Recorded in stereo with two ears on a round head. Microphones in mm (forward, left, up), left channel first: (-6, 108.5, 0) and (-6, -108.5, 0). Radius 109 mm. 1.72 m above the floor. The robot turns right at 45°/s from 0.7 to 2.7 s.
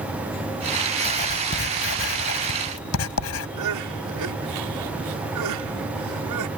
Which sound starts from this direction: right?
Crying, at 3.6 s.